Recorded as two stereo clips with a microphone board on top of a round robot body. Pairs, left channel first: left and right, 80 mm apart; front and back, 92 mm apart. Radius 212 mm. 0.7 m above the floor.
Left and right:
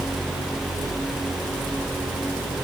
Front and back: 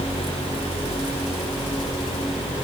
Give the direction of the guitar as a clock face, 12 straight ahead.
No guitar in this recording.